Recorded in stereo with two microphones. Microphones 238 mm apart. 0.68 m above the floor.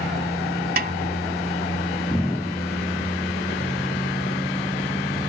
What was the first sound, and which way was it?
A snare drum, 40° right (ahead or behind).